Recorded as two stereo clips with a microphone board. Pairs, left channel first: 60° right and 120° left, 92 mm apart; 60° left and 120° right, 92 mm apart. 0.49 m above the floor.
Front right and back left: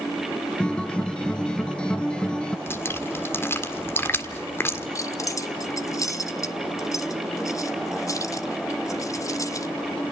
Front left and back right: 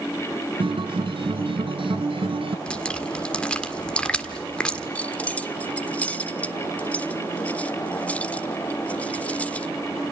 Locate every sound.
0.6 s a guitar: 140° right, 1.2 m
2.7 s dripping: 10° right, 1.7 m
5.0 s keys jangling: 15° right, 1.2 m